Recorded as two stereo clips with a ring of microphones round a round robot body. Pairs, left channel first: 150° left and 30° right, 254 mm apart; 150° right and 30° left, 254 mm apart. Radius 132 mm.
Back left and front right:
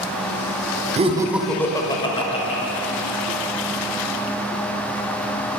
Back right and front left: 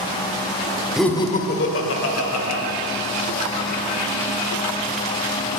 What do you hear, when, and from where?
1.0 s laughter: 55° right, 0.8 m; by 2.6 s 145° right, 2 m